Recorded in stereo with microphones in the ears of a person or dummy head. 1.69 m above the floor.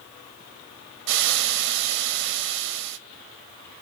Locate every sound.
1.1 s frying: 70° right (ahead or behind), 0.5 m